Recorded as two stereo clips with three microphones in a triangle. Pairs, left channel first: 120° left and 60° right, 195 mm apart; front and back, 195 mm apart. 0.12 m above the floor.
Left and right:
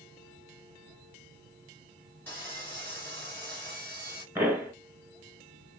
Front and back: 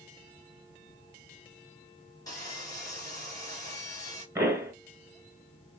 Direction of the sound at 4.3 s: 125° right.